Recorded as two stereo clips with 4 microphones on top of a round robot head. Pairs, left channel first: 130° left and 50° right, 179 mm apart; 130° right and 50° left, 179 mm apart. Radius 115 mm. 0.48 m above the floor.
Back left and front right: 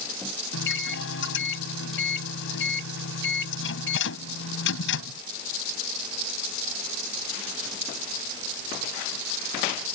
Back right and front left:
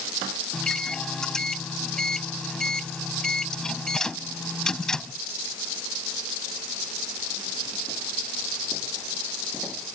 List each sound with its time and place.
0.5 s a microwave: 140° left